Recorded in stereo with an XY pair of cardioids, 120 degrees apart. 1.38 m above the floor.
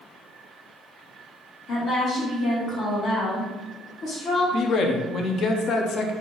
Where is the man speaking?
50° left, 0.6 m.